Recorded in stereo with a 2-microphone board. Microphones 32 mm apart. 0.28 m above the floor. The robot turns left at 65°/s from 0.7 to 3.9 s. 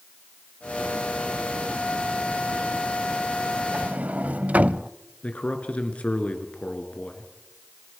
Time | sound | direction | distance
3.7 | a sliding door | 50° right (ahead or behind) | 0.6 m
5.2 | a man speaking | 45° left (ahead or behind) | 3.5 m